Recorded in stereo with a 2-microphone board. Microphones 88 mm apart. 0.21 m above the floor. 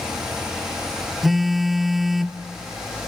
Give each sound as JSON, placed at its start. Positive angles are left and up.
{"t": 1.2, "sound": "a phone buzzing", "side_deg": -5, "distance_m": 0.8}